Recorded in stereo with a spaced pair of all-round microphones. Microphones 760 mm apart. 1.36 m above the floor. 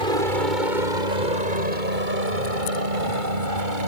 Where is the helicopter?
75° right (ahead or behind).